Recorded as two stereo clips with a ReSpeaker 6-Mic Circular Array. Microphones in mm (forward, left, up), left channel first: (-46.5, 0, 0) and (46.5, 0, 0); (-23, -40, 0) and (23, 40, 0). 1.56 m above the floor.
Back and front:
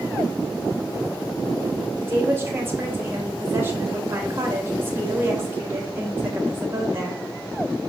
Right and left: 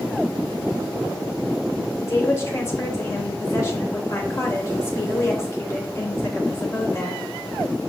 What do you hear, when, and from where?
2.0 s a woman speaking: 65° right, 3 m